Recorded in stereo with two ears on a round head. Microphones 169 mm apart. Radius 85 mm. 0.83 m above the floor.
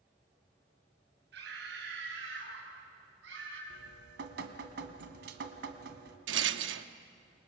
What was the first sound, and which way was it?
A scream, 70° right (ahead or behind).